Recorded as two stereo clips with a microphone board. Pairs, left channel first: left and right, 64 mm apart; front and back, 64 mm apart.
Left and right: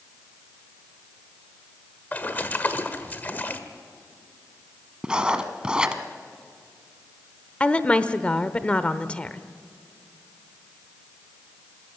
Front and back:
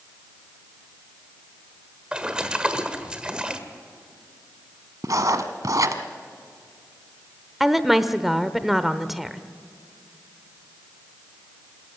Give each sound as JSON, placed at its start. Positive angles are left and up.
{"t": 2.1, "sound": "a splash", "azimuth_deg": 120, "distance_m": 1.4}
{"t": 5.0, "sound": "writing", "azimuth_deg": -165, "distance_m": 1.2}
{"t": 7.6, "sound": "a woman speaking", "azimuth_deg": 100, "distance_m": 0.8}